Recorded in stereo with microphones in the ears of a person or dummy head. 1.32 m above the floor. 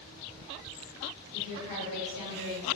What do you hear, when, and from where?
1.3 s a woman speaking: 70° right (ahead or behind), 1.7 m; by 2.7 s 65° right (ahead or behind), 1.7 m